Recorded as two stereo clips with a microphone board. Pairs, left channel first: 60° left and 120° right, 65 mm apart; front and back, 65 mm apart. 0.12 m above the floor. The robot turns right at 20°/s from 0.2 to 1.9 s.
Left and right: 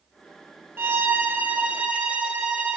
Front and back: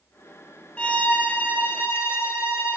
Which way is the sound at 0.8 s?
70° right.